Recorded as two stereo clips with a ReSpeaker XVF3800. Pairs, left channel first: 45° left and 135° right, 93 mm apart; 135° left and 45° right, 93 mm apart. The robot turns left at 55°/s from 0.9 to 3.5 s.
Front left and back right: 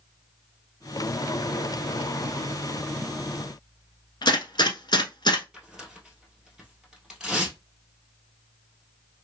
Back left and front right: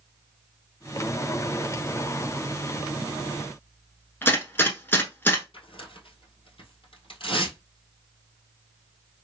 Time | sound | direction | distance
4.2 | a gunshot | 70° left | 1.0 m
5.5 | tearing paper | 140° left | 1.4 m